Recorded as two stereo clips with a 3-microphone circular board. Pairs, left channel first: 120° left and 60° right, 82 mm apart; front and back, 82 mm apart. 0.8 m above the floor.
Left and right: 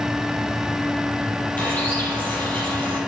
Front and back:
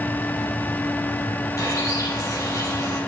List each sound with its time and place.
1.6 s a bird: 50° left, 4.5 m